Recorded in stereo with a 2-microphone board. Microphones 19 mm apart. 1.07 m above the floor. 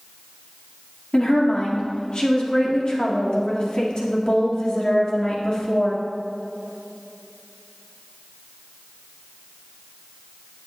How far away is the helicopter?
No helicopter in this recording.